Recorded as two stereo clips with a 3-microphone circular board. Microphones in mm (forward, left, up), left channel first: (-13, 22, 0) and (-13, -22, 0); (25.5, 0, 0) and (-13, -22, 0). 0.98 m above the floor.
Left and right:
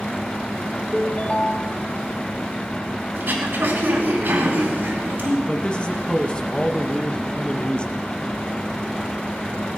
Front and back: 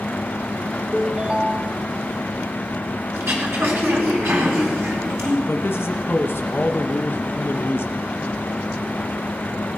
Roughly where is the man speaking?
Ahead left.